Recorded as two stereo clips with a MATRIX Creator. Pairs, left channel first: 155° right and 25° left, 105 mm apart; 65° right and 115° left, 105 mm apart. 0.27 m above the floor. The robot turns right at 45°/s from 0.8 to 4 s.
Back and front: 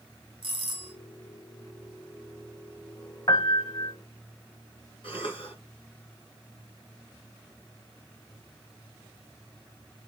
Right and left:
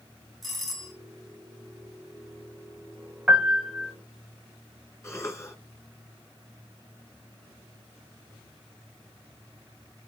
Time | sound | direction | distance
0.4 | a doorbell | 20° left | 2.5 m
3.3 | a piano | 170° right | 1.2 m
5.0 | a cough | 130° right | 3 m